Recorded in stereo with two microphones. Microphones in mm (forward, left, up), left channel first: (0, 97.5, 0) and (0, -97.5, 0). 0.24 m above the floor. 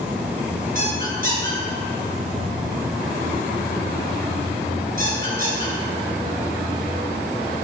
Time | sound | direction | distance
0.8 | a squeak | 45° right (ahead or behind) | 2.5 m